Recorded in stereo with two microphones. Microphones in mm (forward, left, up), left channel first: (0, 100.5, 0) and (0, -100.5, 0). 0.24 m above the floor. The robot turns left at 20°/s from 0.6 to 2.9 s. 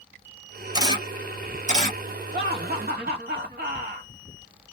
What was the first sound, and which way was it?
A camera shutter, 20° right (ahead or behind).